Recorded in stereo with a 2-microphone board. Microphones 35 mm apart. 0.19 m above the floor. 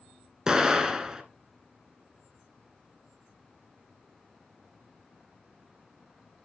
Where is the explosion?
20° right (ahead or behind), 1.4 m.